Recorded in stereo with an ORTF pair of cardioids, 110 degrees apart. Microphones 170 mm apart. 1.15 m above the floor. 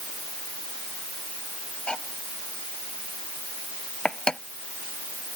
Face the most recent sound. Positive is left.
turn(degrees=5)